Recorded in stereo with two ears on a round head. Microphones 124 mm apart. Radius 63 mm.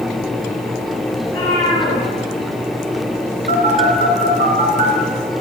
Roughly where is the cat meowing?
Left.